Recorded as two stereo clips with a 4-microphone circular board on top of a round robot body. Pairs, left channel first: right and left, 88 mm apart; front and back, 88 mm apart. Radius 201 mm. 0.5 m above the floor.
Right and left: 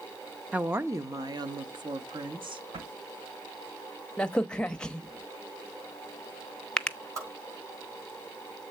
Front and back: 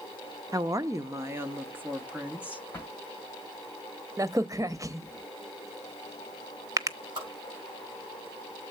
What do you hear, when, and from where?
0.5 s a woman speaking: 160° left, 0.8 m; by 2.6 s 105° left, 1.7 m
2.7 s a drawer: 70° left, 2 m
4.2 s a crack: 165° right, 0.9 m
7.2 s a whoosh: 145° left, 5.5 m